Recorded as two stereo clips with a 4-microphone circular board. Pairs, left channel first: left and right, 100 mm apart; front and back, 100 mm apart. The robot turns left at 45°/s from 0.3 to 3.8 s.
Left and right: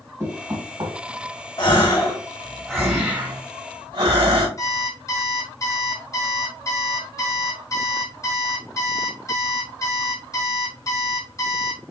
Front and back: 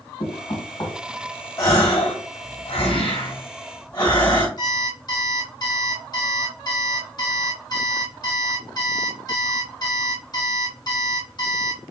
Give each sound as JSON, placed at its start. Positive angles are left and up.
{"t": 0.2, "sound": "knocking", "azimuth_deg": -30, "distance_m": 1.4}
{"t": 1.6, "sound": "a gasp", "azimuth_deg": 55, "distance_m": 1.9}
{"t": 4.6, "sound": "an alarm clock", "azimuth_deg": 35, "distance_m": 1.4}